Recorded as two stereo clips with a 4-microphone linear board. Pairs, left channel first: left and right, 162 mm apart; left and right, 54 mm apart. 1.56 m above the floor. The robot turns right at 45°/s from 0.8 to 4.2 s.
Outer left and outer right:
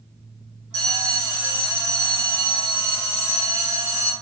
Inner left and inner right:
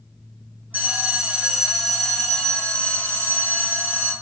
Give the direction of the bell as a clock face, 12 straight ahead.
1 o'clock.